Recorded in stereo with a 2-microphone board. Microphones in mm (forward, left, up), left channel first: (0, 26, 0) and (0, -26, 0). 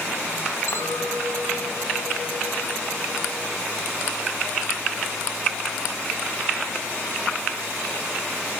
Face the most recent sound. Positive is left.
turn(degrees=75)  # may be behind; listen again after turning